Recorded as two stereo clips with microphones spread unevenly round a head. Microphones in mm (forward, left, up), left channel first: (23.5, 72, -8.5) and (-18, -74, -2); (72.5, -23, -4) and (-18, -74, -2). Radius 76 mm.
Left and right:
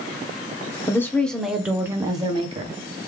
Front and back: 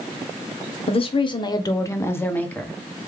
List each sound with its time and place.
0.9 s a woman speaking: straight ahead, 1.0 m; by 2.8 s 50° right, 1.2 m